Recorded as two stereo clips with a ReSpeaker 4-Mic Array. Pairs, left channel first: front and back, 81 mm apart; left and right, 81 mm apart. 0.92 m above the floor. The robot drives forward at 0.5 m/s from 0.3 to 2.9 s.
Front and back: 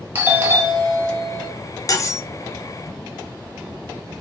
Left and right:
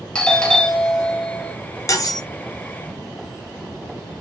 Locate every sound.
0.1 s a doorbell: 160° left, 0.8 m; by 1.5 s 170° left, 1.2 m
1.9 s cutlery clinking: 45° left, 0.6 m; by 2.2 s 55° left, 0.5 m